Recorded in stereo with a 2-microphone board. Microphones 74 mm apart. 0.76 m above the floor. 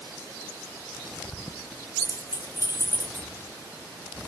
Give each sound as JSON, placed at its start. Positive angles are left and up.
{"t": 2.0, "sound": "keys jangling", "side_deg": 45, "distance_m": 0.5}